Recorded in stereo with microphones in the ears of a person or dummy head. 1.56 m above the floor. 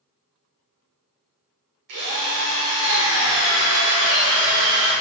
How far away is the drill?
About 0.8 m.